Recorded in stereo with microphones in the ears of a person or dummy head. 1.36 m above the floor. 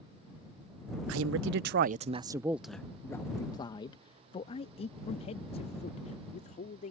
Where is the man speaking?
85° right; by 6.9 s 40° left (ahead or behind).